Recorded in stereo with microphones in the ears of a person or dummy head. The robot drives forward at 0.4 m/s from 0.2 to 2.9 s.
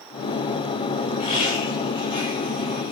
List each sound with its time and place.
1.2 s laughter: 30° left (ahead or behind), 4.5 m; by 2.9 s 25° left (ahead or behind), 5 m